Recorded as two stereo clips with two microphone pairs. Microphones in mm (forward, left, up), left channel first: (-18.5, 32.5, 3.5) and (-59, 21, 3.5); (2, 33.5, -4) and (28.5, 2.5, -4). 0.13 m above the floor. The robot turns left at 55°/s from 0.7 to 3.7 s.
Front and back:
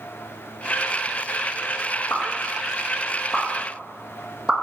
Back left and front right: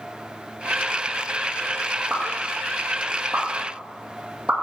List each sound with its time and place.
2.1 s a pop: 5° right, 1.7 m; by 4.5 s 95° right, 1.7 m